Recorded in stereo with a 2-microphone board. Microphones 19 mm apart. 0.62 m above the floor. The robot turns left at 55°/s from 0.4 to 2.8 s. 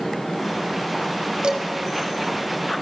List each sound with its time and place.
1.4 s dishes clattering: 80° right, 2.5 m; by 1.6 s 70° right (ahead or behind), 2.5 m